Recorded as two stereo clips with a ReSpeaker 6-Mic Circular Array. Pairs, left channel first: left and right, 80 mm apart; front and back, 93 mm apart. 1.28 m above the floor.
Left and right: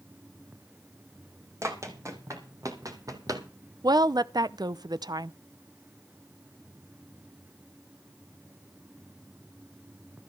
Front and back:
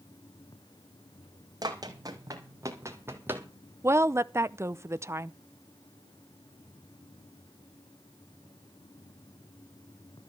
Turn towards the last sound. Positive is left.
turn(degrees=-120)